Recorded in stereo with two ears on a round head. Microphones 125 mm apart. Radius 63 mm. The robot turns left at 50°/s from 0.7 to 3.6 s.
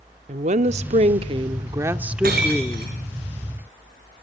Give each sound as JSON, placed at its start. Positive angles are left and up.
{"t": 0.3, "sound": "a woman speaking", "azimuth_deg": -95, "distance_m": 1.0}
{"t": 2.2, "sound": "breaking glass", "side_deg": -70, "distance_m": 6.5}